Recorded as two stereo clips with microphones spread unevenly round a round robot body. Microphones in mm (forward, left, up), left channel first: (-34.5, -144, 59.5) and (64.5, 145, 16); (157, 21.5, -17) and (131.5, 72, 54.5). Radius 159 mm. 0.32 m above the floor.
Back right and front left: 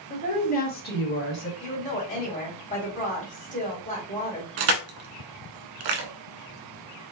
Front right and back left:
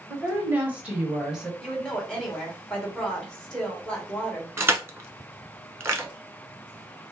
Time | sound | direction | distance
0.1 | a woman speaking | 45° right | 1.5 m
1.6 | a woman speaking | 40° right | 2.5 m
4.6 | crushing | 65° left | 1.1 m